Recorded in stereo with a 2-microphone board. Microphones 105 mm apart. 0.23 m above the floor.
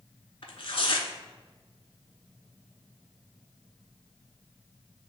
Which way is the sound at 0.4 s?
65° left (ahead or behind).